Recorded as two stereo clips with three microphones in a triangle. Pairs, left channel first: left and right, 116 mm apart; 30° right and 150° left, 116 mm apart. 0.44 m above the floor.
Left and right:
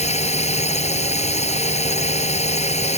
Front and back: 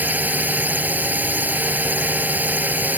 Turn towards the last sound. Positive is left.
turn(degrees=75)